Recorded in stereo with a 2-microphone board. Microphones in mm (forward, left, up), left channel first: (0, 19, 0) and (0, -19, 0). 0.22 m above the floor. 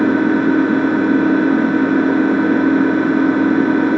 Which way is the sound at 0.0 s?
5° right (ahead or behind).